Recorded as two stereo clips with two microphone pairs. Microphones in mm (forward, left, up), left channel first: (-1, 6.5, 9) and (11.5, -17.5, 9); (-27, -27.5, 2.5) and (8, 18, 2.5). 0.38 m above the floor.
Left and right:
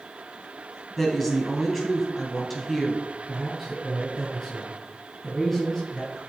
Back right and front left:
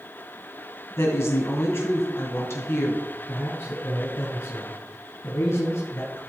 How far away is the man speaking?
About 3 m.